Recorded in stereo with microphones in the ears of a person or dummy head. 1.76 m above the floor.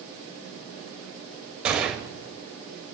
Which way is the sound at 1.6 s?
5° right (ahead or behind).